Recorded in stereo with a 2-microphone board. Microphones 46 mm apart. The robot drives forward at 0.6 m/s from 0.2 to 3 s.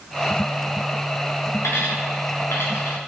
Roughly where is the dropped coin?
Left.